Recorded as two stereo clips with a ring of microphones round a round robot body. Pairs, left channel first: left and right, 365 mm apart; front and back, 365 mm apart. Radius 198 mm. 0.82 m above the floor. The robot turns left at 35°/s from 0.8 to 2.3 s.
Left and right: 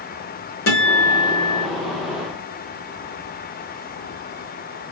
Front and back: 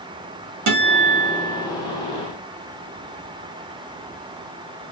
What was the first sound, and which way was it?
A guitar, 150° left.